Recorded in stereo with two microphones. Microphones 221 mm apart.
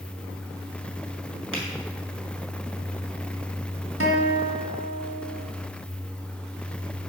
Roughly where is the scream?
No scream in this recording.